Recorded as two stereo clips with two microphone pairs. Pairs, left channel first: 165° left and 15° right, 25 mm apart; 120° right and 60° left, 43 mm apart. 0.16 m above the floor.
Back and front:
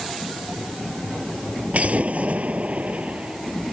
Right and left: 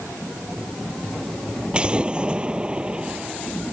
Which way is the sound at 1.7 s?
5° right.